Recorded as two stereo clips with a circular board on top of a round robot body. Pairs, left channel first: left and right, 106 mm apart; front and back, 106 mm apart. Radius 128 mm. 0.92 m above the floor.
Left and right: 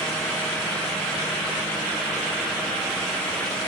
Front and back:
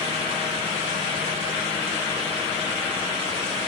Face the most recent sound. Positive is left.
No sound to turn to.